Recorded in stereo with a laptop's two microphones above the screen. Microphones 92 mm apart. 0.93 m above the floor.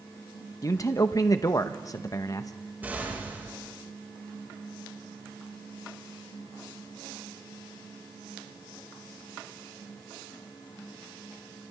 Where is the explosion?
20° right (ahead or behind), 5 m.